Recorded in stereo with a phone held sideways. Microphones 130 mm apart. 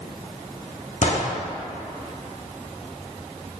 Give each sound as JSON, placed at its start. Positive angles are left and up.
{"t": 1.0, "sound": "a gunshot", "side_deg": 60, "distance_m": 1.0}